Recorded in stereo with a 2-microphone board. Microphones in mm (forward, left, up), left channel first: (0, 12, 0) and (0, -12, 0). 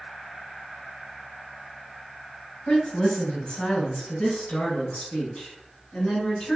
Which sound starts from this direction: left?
A woman speaking, at 2.7 s.